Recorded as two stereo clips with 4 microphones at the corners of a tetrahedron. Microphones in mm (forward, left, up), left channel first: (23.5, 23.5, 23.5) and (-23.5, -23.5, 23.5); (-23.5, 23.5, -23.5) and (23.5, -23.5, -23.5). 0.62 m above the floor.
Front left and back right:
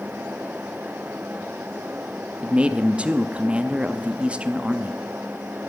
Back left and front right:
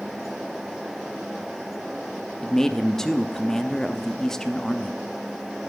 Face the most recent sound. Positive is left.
turn(degrees=-160)